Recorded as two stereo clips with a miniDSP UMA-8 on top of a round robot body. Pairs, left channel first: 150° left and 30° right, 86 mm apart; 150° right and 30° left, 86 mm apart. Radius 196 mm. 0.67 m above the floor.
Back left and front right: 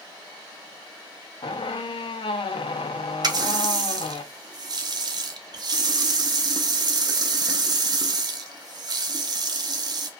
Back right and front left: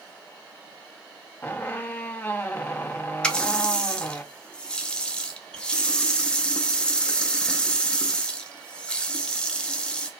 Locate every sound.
1.4 s a squeak: 140° left, 0.6 m
3.2 s a running tap: 70° right, 0.6 m